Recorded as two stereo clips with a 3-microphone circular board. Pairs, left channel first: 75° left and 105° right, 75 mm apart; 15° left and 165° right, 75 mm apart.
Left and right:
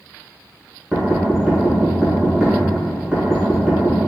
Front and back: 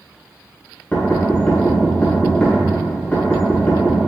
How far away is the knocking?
About 1.3 m.